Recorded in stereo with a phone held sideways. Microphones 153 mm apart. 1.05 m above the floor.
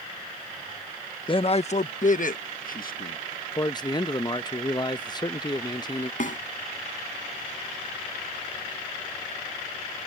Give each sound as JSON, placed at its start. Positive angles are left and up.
{"t": 1.3, "sound": "a man speaking", "side_deg": 35}
{"t": 3.5, "sound": "a man speaking", "side_deg": 30}
{"t": 6.2, "sound": "a snare drum", "side_deg": 60}